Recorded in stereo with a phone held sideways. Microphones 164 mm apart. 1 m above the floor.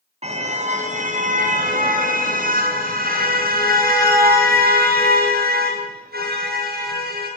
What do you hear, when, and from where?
0.2 s a car horn: 40° right (ahead or behind), 3.5 m; by 7.3 s 75° right (ahead or behind), 9 m